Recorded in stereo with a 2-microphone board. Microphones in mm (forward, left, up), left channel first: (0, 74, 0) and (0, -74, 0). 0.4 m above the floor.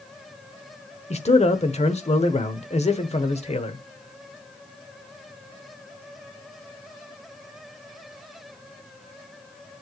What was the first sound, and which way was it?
A man speaking, 45° left (ahead or behind).